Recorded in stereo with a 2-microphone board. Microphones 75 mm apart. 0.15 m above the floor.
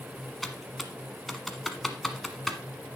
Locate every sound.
0.4 s typing on a keyboard: centre (ahead or behind), 1.2 m